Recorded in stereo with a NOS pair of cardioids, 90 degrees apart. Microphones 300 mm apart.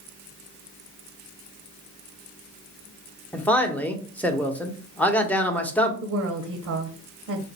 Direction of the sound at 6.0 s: 60° right.